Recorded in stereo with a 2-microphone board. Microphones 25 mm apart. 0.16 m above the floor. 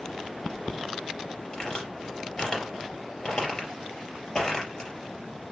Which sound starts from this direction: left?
A crack, at 1.5 s.